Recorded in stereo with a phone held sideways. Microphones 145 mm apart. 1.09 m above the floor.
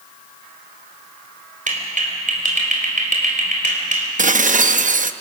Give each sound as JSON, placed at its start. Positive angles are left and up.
{"t": 1.7, "sound": "a clap", "side_deg": -65, "distance_m": 3.5}
{"t": 4.2, "sound": "dishes clattering", "side_deg": -65, "distance_m": 0.7}